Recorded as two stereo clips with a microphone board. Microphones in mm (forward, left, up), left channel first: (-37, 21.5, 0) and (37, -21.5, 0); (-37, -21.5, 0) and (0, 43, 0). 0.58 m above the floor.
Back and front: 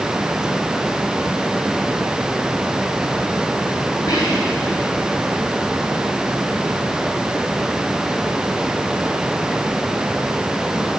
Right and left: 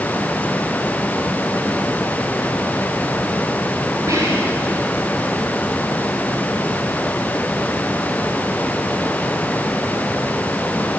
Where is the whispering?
110° left, 4.5 m.